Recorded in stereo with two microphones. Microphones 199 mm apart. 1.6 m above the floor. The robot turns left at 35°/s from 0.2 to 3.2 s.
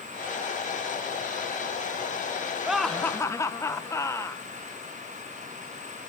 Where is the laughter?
5° right (ahead or behind), 1.1 m; by 4.4 s 15° left (ahead or behind), 1.1 m.